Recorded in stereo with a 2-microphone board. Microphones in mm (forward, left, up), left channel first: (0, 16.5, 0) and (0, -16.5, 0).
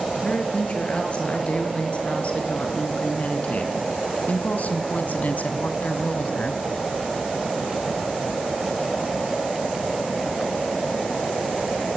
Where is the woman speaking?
40° left (ahead or behind), 6.5 m; by 6.6 s 50° left (ahead or behind), 2 m.